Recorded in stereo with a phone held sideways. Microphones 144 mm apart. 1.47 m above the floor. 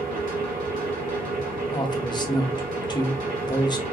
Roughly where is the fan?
Right.